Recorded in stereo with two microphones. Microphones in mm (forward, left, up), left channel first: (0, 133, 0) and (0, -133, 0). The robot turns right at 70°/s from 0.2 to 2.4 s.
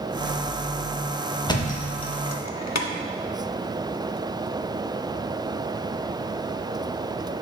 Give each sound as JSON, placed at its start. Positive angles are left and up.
{"t": 1.5, "sound": "a thud", "side_deg": 15, "distance_m": 0.6}